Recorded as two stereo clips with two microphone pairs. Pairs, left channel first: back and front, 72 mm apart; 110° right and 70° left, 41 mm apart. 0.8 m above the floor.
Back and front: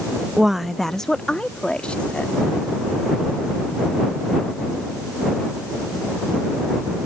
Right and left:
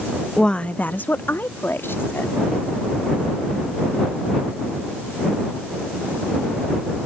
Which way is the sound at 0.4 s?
70° right.